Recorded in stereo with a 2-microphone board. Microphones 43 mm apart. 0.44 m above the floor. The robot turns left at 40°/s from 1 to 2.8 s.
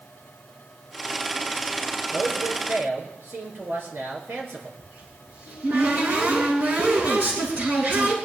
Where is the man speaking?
80° right, 5.5 m; by 4.7 s 70° right (ahead or behind), 5.5 m.